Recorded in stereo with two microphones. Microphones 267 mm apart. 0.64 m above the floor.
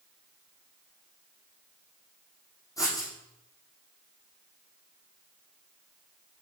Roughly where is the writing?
Centre.